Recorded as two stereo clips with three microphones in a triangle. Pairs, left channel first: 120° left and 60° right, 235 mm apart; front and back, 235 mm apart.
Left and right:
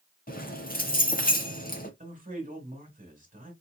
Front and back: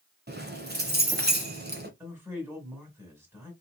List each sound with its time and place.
0.3 s keys jangling: 155° left, 1.0 m
2.0 s a man speaking: 105° right, 1.5 m